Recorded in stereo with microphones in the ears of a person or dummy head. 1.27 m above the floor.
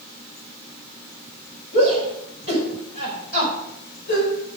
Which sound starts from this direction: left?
A shout, at 1.7 s.